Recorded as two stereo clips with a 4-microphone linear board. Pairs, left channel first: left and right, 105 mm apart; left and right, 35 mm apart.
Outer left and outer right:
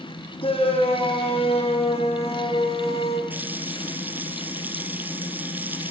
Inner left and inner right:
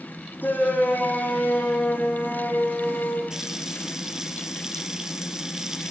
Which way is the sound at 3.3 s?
15° right (ahead or behind).